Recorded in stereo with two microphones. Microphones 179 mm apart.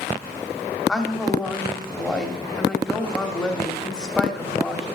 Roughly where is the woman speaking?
Centre.